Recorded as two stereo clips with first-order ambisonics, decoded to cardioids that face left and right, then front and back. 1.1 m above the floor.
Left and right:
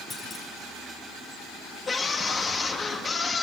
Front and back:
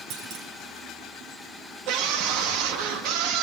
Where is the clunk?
160° left, 2.5 m.